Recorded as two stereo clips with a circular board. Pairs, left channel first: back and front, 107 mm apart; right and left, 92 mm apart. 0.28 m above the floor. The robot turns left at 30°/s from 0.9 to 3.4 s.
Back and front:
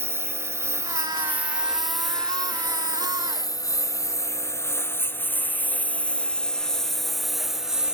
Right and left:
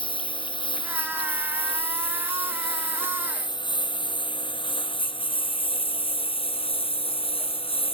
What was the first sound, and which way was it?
A lawn mower, 70° right.